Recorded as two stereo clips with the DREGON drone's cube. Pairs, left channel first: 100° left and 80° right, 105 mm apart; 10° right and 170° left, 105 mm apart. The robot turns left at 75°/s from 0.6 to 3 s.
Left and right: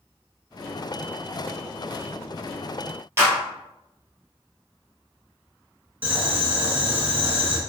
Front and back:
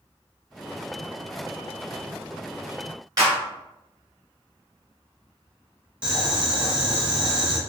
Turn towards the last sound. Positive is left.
turn(degrees=-120)